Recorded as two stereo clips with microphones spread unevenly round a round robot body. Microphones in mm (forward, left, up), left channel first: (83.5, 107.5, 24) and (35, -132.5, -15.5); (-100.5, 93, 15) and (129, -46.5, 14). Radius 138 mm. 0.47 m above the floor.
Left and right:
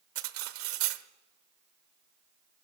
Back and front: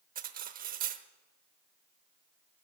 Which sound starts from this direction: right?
Cutlery clinking, at 0.1 s.